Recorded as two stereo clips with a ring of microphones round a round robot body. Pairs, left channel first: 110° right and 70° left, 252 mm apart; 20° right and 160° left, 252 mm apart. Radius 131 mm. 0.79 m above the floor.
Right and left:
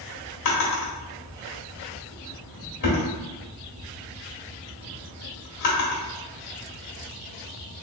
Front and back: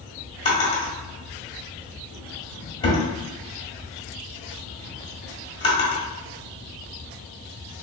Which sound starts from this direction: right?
A drawer, at 0.5 s.